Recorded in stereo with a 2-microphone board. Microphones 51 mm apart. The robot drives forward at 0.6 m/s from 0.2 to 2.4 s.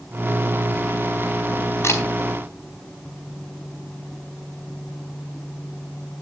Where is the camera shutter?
55° left (ahead or behind), 3.5 m.